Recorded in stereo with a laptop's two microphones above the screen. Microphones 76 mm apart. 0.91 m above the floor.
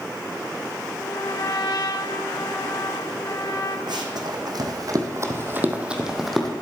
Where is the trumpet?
60° left (ahead or behind), 1.2 m.